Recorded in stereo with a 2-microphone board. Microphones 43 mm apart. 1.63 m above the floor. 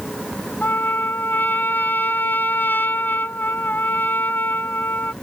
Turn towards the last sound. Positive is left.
turn(degrees=45)  # may be behind; listen again after turning